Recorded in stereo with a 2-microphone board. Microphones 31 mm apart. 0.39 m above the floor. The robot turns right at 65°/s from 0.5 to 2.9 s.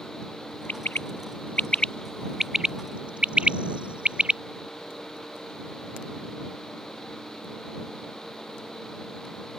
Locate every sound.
0.7 s a bird: 70° left (ahead or behind); by 4.4 s 35° right (ahead or behind)